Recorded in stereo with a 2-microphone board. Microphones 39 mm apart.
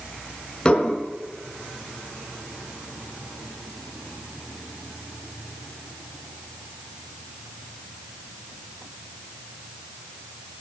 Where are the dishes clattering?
20° left (ahead or behind), 3 m.